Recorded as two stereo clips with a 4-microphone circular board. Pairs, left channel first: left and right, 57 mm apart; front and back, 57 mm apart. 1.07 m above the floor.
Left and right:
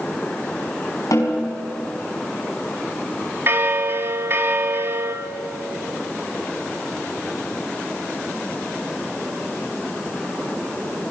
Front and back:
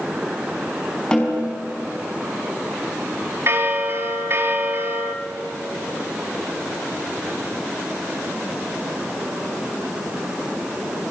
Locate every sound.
1.1 s a snare drum: 75° left, 5 m
3.5 s a bell: 135° right, 2 m